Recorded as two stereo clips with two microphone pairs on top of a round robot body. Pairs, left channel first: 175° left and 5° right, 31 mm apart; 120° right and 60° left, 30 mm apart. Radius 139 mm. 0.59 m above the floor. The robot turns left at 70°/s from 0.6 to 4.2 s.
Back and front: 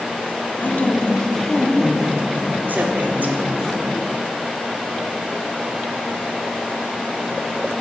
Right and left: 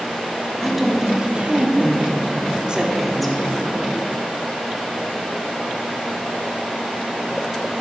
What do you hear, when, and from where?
0.6 s a woman speaking: 155° left, 1.5 m; by 3.5 s 50° right, 1.5 m